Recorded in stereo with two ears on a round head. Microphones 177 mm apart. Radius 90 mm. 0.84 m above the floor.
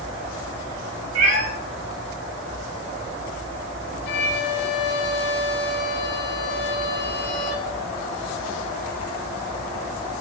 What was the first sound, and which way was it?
A cat meowing, 85° right.